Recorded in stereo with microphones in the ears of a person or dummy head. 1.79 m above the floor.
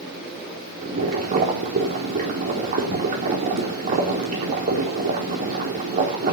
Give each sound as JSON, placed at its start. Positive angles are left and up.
{"t": 0.8, "sound": "boiling", "side_deg": -45, "distance_m": 4.0}